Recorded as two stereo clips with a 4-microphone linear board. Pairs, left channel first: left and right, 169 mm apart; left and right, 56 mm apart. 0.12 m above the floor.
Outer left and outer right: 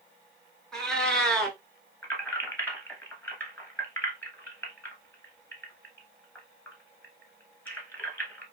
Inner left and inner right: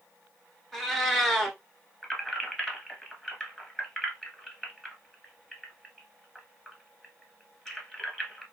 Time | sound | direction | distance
0.7 | a cat meowing | 5° left (ahead or behind) | 0.8 m
2.0 | keys jangling | 10° left (ahead or behind) | 1.2 m